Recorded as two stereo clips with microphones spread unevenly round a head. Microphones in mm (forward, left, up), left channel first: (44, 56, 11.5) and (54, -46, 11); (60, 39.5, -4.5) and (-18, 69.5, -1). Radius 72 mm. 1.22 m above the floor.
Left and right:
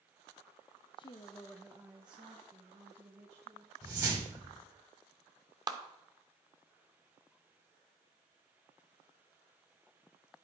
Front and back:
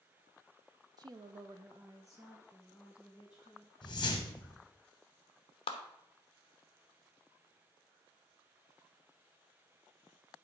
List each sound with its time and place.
1.0 s a woman speaking: 130° left, 0.8 m; by 3.7 s 115° right, 2.5 m
3.8 s a whoosh: 30° right, 1.6 m
5.7 s a clap: 35° right, 1.0 m